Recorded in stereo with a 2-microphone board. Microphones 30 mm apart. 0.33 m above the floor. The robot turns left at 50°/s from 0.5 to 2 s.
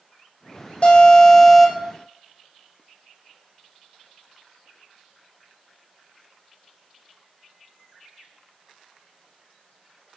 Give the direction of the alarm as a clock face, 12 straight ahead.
11 o'clock.